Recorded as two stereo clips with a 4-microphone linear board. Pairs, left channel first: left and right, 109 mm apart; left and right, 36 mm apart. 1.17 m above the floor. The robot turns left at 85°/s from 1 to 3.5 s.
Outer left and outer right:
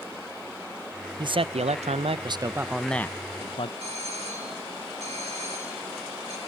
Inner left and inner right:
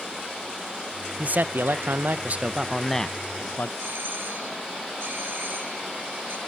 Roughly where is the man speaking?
Ahead right.